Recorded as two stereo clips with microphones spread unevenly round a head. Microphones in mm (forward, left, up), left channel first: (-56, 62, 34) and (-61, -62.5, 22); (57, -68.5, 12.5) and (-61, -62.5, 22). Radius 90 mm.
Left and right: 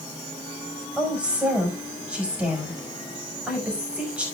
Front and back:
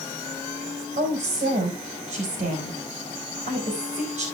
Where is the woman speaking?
170° right, 5 m.